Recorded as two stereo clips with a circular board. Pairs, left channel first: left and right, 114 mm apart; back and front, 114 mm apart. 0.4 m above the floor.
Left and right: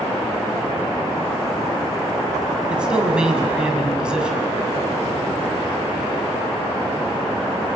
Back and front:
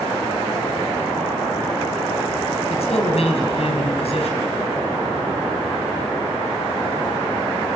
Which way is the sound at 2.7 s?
170° right.